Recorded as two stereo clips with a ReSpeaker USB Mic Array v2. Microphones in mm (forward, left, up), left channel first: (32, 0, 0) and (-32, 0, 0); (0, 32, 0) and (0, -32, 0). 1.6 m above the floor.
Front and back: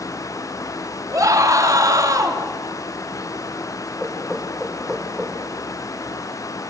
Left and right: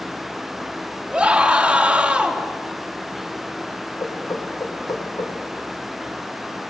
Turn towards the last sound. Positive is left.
turn(degrees=90)